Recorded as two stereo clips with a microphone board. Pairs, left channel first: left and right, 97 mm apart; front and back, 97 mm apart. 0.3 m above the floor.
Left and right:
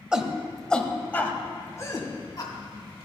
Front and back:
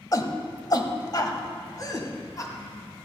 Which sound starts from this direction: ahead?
A shout, at 0.1 s.